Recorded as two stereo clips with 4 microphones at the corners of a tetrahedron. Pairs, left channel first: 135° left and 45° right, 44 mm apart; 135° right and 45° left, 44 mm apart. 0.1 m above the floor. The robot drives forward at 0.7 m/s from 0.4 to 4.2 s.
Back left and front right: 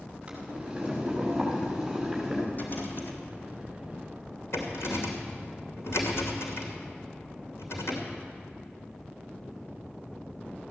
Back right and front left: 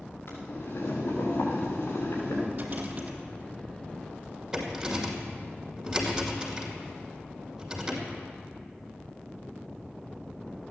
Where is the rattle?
90° left, 1.9 m; by 8.1 s 125° left, 2 m.